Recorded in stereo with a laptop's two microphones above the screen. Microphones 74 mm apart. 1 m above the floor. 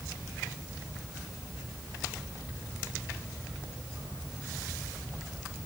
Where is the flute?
I don't hear a flute.